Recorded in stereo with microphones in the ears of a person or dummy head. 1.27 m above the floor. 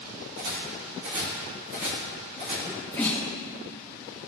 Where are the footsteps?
55° right (ahead or behind), 2 m; by 2.5 s 35° right (ahead or behind), 3.5 m.